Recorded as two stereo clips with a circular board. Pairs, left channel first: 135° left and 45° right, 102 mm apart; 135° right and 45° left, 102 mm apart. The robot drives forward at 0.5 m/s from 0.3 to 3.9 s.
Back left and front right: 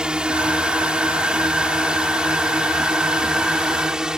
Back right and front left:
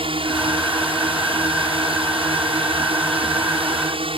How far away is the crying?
I don't hear crying.